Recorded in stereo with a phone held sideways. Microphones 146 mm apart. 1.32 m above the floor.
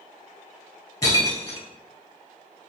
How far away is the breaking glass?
About 1.7 m.